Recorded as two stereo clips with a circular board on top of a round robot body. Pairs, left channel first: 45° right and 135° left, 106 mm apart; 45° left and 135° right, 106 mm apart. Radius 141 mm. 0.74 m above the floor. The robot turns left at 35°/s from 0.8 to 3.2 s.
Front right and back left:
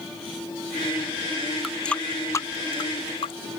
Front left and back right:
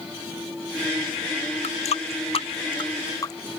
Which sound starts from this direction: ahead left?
A running tap, at 1.6 s.